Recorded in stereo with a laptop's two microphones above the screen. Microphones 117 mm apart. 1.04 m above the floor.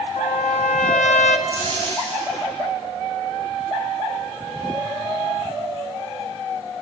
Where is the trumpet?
80° left, 0.7 m.